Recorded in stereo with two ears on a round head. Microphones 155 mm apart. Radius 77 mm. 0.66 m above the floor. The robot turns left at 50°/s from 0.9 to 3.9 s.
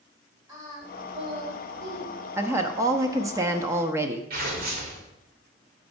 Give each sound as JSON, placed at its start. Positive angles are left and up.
{"t": 0.5, "sound": "singing", "azimuth_deg": -20, "distance_m": 2.5}
{"t": 2.4, "sound": "a woman speaking", "side_deg": -15, "distance_m": 0.5}
{"t": 4.3, "sound": "tearing paper", "side_deg": -55, "distance_m": 2.0}